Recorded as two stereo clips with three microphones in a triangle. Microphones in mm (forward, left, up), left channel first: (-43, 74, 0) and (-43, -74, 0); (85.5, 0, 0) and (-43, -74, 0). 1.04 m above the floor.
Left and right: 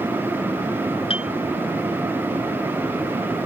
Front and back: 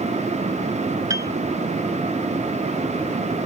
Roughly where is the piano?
Behind left.